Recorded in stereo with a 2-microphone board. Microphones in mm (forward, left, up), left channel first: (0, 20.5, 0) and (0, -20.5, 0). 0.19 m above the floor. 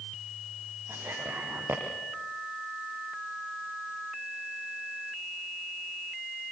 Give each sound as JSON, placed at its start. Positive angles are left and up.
{"t": 0.9, "sound": "whispering", "side_deg": -75, "distance_m": 5.5}